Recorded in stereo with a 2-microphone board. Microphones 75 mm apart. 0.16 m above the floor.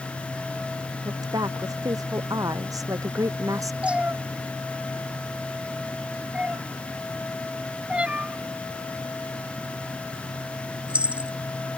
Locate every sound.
1.1 s a woman speaking: 55° right (ahead or behind); by 3.7 s 45° right (ahead or behind)
3.8 s a cat meowing: 15° right (ahead or behind)